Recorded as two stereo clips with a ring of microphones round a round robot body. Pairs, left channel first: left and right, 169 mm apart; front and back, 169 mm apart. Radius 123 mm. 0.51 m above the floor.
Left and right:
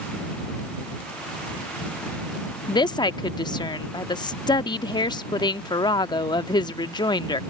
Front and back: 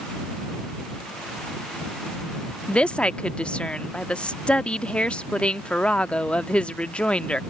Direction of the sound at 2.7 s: 75° left.